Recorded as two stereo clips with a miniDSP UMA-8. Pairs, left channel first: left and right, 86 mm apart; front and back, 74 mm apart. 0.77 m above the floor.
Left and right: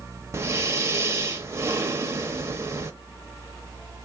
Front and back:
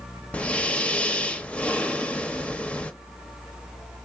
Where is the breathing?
60° right, 0.6 m.